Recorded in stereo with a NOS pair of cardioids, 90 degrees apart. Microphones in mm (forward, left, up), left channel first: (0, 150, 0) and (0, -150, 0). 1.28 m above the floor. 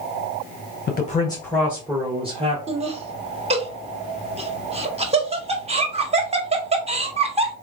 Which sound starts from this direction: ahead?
Laughter, at 2.7 s.